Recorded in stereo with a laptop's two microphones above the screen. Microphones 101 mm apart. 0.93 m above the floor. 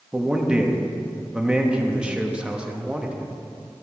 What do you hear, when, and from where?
0.1 s a man speaking: 10° right (ahead or behind), 1.3 m